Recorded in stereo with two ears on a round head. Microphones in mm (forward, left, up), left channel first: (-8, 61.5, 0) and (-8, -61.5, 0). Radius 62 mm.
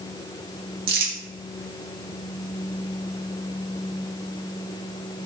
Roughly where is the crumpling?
Right.